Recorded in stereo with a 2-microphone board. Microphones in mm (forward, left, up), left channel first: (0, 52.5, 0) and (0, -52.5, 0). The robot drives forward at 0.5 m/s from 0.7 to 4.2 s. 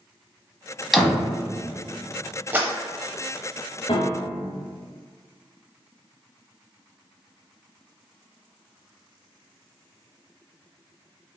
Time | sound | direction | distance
0.9 | a door slam | centre (ahead or behind) | 1.0 m
2.5 | a clap | 20° right (ahead or behind) | 0.7 m
3.9 | a piano | 80° left | 1.0 m